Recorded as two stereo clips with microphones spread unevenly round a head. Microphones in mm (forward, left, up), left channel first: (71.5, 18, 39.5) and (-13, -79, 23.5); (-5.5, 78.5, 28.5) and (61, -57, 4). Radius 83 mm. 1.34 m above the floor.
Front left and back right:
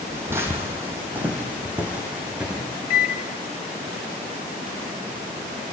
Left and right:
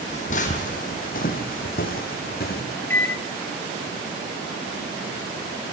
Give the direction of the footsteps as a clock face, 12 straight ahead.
7 o'clock.